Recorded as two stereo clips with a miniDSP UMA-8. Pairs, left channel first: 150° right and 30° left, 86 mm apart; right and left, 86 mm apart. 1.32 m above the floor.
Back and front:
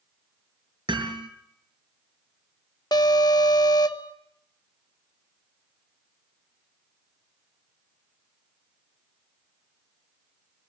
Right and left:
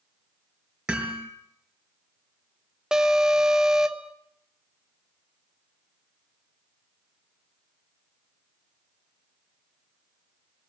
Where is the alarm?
170° left, 1.1 m.